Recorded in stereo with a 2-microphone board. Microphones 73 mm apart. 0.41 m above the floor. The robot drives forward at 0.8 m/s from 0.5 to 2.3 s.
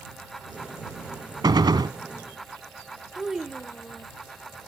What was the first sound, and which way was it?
A gunshot, 80° right.